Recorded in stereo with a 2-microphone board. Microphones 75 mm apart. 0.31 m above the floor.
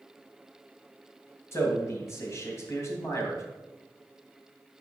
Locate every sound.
1.5 s a man speaking: 35° left (ahead or behind), 2 m